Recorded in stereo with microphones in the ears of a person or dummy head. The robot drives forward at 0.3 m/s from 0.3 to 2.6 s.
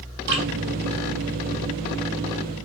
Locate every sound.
0.3 s dripping: 60° right (ahead or behind), 2.5 m